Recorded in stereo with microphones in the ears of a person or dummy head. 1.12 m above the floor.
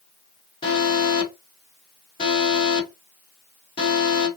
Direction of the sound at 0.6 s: 30° left (ahead or behind).